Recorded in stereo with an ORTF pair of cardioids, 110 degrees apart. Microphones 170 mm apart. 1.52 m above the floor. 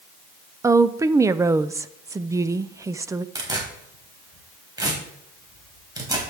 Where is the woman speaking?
15° right, 0.6 m.